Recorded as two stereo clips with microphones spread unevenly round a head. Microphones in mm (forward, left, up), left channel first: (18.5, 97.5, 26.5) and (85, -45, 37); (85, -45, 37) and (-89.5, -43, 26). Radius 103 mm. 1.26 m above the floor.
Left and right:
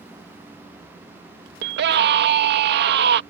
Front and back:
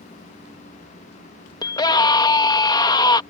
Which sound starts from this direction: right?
A scream, at 1.6 s.